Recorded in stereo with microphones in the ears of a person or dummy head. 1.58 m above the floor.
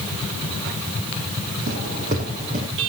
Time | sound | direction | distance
1.7 | footsteps | 50° right (ahead or behind) | 4 m